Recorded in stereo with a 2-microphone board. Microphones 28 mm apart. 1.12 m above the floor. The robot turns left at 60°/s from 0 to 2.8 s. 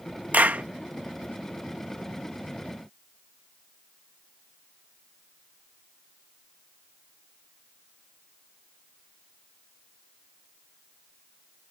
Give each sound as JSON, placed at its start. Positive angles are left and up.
{"t": 0.3, "sound": "a clap", "side_deg": -85}